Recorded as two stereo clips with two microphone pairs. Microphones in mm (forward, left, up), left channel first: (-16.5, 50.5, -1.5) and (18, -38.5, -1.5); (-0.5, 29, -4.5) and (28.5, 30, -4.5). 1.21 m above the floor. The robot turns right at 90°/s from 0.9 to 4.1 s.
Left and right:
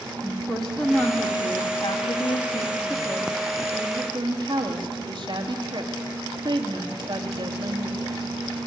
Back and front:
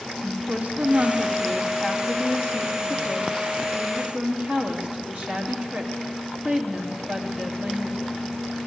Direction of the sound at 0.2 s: 25° left.